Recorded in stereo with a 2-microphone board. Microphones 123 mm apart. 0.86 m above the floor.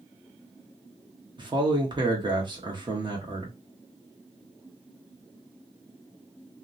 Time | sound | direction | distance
1.4 | a man speaking | 40° right (ahead or behind) | 1.0 m